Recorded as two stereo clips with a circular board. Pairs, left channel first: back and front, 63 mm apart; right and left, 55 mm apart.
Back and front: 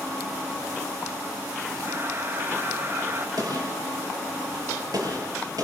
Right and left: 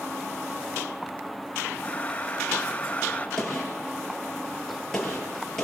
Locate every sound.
1.8 s breathing: 35° right, 0.9 m
3.4 s a gunshot: 10° right, 6 m